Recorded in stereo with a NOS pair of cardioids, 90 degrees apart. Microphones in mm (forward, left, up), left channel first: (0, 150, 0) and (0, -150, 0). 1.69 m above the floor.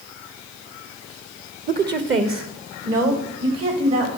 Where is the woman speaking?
25° right, 0.7 m; by 4.1 s 55° right, 3 m.